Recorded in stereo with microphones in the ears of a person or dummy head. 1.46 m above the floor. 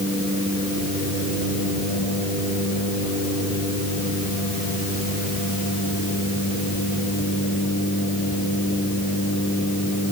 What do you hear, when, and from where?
Only background noise.